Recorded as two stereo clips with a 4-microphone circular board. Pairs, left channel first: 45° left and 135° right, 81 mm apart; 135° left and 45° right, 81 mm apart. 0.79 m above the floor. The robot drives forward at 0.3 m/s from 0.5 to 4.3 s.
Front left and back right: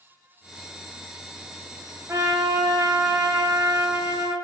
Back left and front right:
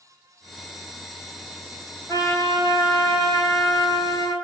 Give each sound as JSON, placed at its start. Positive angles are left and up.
{"t": 2.1, "sound": "a trumpet", "azimuth_deg": 180, "distance_m": 2.5}